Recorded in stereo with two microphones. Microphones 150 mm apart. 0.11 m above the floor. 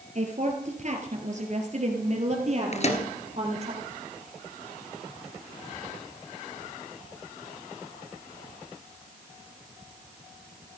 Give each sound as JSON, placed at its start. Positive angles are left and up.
{"t": 0.1, "sound": "a woman speaking", "side_deg": -50, "distance_m": 2.5}
{"t": 2.7, "sound": "a microwave", "side_deg": 50, "distance_m": 1.6}